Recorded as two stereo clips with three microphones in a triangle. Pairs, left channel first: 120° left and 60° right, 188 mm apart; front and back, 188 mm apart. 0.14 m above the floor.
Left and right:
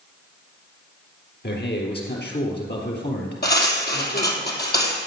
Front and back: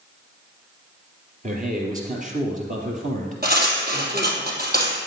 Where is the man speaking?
140° left, 3.5 m.